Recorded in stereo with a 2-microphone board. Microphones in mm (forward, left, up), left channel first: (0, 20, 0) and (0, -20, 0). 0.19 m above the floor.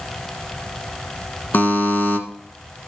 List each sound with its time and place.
1.5 s a buzzer: 50° left (ahead or behind), 1.4 m